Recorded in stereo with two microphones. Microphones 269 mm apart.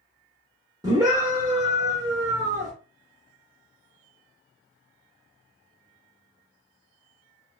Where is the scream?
15° right (ahead or behind), 0.8 m.